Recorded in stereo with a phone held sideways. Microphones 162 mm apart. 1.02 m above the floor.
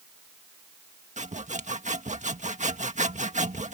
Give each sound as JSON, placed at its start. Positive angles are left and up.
{"t": 1.2, "sound": "sawing", "side_deg": -50}